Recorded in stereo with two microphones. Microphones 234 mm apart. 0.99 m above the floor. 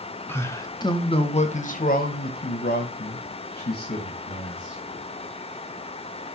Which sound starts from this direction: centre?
A man speaking, at 0.3 s.